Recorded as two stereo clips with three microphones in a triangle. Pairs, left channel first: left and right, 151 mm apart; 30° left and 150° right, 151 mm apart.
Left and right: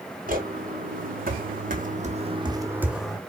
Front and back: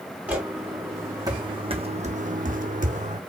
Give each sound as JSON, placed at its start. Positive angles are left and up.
{"t": 0.3, "sound": "footsteps", "azimuth_deg": -70, "distance_m": 2.5}